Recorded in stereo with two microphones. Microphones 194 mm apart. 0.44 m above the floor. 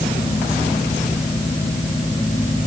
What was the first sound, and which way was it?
Only background noise.